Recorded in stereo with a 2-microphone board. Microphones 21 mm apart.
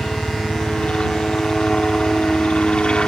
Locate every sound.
0.0 s a helicopter: 55° left (ahead or behind)